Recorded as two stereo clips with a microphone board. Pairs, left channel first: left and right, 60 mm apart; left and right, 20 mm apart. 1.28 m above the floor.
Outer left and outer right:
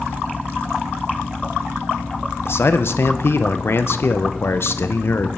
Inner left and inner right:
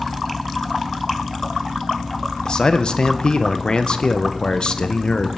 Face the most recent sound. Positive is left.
turn(degrees=45)  # may be behind; listen again after turning